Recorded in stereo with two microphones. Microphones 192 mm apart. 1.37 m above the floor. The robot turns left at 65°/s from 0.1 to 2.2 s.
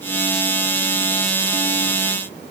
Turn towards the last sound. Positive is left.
No sound to turn to.